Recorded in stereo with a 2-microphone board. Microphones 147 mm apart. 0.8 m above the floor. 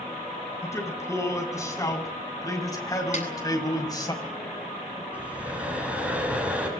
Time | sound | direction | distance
0.6 | a man speaking | 20° left (ahead or behind) | 7.5 m
3.1 | a snare drum | 60° left (ahead or behind) | 9 m
5.1 | breathing | 10° right (ahead or behind) | 7 m